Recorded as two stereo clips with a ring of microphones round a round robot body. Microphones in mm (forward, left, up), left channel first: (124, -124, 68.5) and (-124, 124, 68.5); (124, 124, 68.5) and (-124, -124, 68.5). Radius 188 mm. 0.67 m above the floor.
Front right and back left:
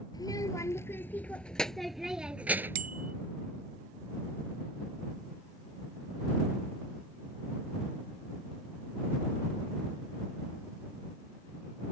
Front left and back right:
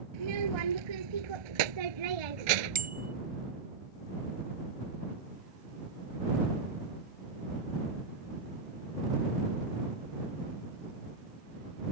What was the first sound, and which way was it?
A child speaking, 125° right.